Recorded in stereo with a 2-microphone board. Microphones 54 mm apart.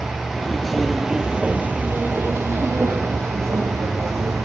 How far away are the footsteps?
About 1.0 m.